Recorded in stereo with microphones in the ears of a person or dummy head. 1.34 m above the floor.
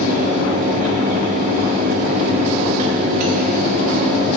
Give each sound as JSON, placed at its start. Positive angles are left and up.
{"t": 0.0, "sound": "a fan", "side_deg": -40, "distance_m": 1.0}